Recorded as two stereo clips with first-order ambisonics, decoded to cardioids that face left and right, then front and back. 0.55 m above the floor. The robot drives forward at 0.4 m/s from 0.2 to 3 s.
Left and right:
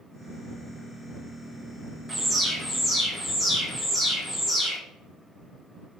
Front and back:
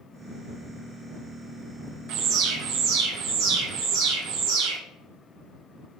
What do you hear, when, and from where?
2.1 s an alarm: 160° right, 0.5 m; by 4.8 s 170° right, 0.8 m